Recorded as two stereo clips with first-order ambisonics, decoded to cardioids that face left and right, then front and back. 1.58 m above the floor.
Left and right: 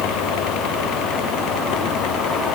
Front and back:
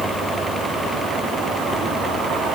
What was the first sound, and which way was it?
Only background noise.